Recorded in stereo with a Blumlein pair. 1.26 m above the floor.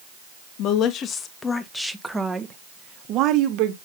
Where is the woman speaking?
40° left, 1.3 m; by 3.8 s 45° right, 1.6 m.